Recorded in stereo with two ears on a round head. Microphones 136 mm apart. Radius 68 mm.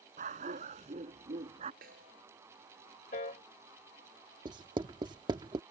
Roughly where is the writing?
Right.